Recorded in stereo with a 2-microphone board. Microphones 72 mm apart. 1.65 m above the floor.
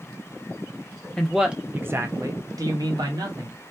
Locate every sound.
1.2 s a man speaking: 10° left (ahead or behind), 0.5 m; by 3.6 s 70° right (ahead or behind), 1.3 m